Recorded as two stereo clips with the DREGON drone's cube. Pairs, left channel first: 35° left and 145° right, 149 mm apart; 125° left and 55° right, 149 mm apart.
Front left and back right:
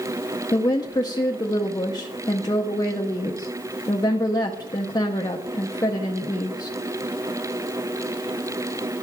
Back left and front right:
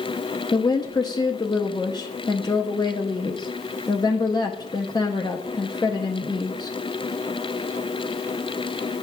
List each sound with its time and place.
0.5 s a woman speaking: 80° left, 0.6 m